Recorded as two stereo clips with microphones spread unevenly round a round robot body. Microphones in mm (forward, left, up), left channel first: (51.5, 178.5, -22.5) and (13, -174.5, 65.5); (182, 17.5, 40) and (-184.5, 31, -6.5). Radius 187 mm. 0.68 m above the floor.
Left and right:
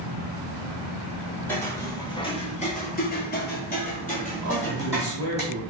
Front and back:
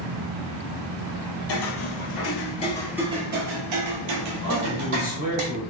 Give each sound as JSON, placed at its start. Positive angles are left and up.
{"t": 1.5, "sound": "footsteps", "azimuth_deg": -10, "distance_m": 1.2}
{"t": 4.4, "sound": "a man speaking", "azimuth_deg": 50, "distance_m": 1.5}